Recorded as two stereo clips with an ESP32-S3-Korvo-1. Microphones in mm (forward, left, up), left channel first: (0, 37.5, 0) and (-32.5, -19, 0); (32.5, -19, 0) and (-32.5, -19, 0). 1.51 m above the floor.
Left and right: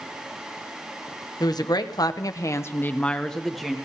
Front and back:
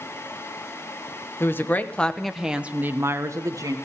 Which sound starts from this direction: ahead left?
A woman speaking, at 1.4 s.